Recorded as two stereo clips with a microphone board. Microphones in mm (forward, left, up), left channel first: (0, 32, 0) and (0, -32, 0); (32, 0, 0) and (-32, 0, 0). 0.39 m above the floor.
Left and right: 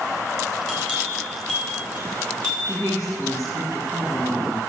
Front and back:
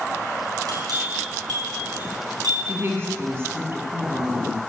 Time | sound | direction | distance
0.7 | a bell | 165° left | 5.5 m
2.6 | a woman speaking | 125° left | 3.5 m